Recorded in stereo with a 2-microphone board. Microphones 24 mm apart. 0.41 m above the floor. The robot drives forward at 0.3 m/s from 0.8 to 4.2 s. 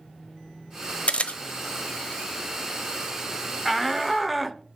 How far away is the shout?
About 0.9 m.